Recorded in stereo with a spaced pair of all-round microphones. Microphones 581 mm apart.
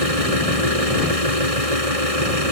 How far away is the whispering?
No whispering in this recording.